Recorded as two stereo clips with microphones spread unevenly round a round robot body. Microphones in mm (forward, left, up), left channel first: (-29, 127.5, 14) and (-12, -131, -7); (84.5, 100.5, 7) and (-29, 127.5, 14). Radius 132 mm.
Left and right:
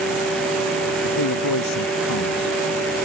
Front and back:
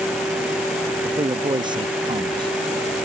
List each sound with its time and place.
1.0 s a man speaking: 115° left